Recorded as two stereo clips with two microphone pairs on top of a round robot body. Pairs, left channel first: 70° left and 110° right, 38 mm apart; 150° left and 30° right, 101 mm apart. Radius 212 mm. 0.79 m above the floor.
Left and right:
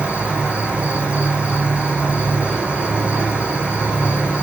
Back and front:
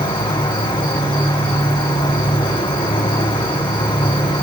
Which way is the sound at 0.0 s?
170° right.